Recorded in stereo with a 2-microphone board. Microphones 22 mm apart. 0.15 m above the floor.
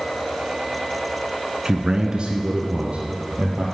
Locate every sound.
1.6 s a man speaking: 30° right (ahead or behind), 1.5 m; by 3.6 s 60° right (ahead or behind), 3.5 m